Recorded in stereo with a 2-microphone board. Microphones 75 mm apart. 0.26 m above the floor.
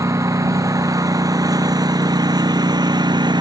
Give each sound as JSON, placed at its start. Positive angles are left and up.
{"t": 0.0, "sound": "a lawn mower", "side_deg": -40}